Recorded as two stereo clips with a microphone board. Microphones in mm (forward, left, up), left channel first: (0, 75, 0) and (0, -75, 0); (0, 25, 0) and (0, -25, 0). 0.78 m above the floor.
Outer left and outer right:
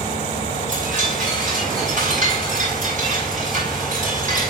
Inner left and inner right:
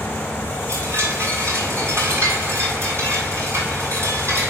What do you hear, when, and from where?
0.7 s a chime: 60° right (ahead or behind), 8 m